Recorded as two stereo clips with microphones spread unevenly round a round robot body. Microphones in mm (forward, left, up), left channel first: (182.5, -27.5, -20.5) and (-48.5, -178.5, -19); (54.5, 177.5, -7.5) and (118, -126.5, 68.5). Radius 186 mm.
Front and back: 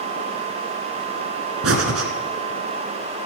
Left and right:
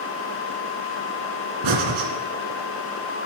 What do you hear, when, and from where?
1.6 s breathing: 110° right, 2 m